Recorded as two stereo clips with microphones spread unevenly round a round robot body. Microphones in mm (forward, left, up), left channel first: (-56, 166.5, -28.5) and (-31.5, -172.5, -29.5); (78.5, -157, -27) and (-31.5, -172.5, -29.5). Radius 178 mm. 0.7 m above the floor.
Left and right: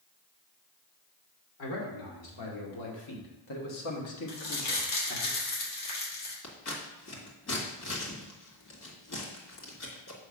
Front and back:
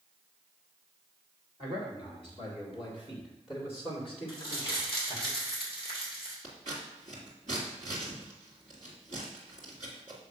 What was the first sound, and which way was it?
A man speaking, 115° left.